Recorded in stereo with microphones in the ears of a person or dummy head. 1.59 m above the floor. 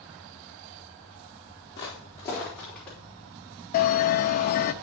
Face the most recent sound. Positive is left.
turn(degrees=45)  # may be behind; listen again after turning